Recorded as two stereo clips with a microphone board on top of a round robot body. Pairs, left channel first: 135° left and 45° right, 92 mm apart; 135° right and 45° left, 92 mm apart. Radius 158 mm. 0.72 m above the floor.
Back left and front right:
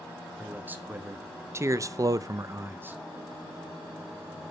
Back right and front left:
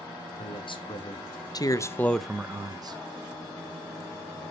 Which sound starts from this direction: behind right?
A man speaking, at 0.4 s.